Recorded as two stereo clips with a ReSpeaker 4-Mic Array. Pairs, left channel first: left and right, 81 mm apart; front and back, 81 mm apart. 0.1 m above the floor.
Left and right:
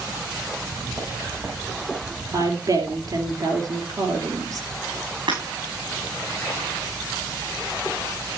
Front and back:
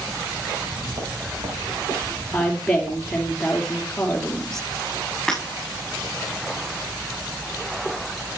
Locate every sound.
0.6 s footsteps: 155° right, 5.5 m; by 3.3 s 165° left, 7 m
2.3 s a woman speaking: 80° right, 2.5 m
5.3 s breaking glass: 85° right, 6.5 m